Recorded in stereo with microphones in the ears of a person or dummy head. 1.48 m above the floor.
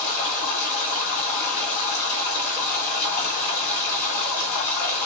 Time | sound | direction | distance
0.0 | running water | 50° left (ahead or behind) | 2 m